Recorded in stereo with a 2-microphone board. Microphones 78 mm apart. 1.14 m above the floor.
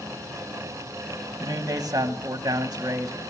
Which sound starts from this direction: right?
A man speaking, at 1.4 s.